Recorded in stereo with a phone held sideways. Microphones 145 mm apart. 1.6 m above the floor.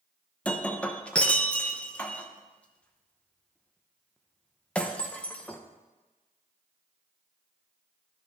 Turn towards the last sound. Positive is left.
turn(degrees=10)  # may be behind; listen again after turning